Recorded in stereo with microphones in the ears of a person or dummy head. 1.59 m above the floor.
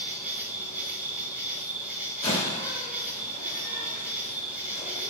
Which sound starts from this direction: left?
A door slam, at 2.2 s.